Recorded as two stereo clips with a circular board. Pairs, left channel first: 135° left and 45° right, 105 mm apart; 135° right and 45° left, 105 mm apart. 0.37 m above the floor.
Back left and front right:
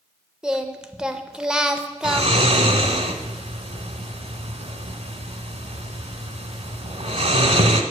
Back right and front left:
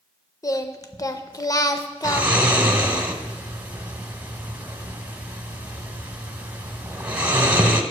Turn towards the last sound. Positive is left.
turn(degrees=-30)